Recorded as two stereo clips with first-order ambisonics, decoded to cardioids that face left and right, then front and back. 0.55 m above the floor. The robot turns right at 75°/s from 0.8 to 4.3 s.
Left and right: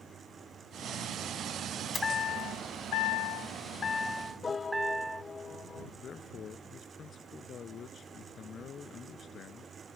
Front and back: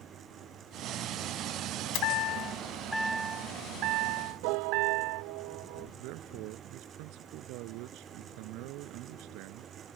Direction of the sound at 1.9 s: 10° left.